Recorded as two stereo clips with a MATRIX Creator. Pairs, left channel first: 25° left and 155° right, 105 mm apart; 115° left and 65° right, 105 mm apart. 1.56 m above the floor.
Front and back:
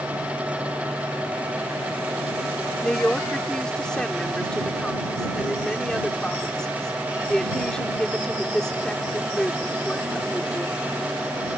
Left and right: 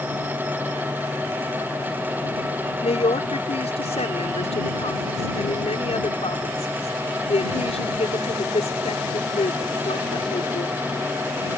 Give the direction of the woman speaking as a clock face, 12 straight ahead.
8 o'clock.